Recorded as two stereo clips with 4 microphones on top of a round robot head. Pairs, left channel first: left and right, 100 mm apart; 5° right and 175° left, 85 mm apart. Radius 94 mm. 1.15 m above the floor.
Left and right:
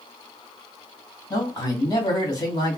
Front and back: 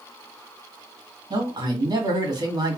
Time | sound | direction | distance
1.3 | a man speaking | 145° left | 2 m